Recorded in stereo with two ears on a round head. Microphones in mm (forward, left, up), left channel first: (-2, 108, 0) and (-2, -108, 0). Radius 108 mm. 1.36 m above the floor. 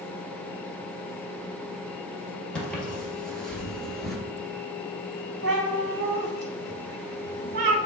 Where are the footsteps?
5° left (ahead or behind), 1.8 m; by 4.2 s centre (ahead or behind), 1.3 m.